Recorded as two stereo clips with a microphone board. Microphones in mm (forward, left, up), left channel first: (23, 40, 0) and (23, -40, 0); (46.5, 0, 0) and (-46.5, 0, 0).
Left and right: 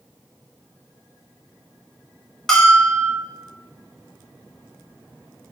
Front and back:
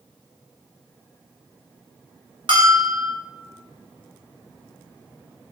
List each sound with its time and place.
2.5 s a bell: 175° left, 0.8 m